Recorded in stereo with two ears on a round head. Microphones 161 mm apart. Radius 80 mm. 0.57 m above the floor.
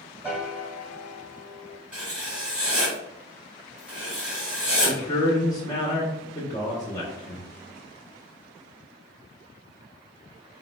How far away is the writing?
About 2.0 m.